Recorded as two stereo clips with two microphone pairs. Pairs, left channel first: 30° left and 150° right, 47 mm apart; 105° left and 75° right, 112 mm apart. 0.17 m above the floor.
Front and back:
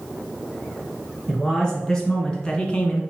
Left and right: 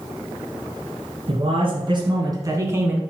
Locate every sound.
1.3 s a man speaking: 50° right, 2.5 m; by 3.0 s 10° right, 1.6 m